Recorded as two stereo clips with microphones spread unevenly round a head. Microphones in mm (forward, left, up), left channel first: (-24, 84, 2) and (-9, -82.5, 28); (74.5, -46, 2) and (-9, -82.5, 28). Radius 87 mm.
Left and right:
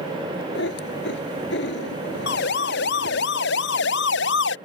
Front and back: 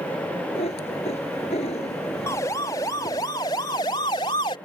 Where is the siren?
90° left; by 4.5 s 85° left.